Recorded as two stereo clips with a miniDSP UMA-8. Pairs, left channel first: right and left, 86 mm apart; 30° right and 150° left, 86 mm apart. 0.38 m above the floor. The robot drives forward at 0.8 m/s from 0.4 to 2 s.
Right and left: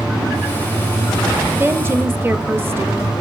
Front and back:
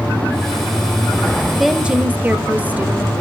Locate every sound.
1.6 s a woman speaking: 60° left, 0.9 m; by 3.1 s 105° left, 0.9 m